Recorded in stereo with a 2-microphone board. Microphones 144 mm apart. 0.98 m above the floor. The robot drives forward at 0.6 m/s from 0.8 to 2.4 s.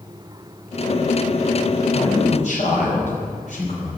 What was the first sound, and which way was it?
A man speaking, 55° left (ahead or behind).